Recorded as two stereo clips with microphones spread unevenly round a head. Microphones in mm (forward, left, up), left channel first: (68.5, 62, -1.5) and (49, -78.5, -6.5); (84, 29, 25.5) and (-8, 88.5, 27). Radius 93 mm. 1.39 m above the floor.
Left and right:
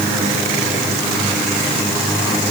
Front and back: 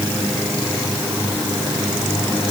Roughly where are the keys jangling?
No keys jangling in this recording.